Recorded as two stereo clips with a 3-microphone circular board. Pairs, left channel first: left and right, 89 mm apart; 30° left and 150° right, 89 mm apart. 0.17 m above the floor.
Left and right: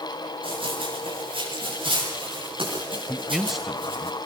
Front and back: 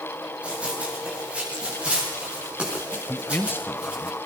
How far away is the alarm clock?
I don't hear an alarm clock.